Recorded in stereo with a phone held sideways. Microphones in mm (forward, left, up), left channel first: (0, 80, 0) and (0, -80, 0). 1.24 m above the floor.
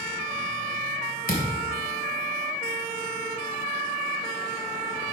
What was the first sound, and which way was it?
A thud, 65° left (ahead or behind).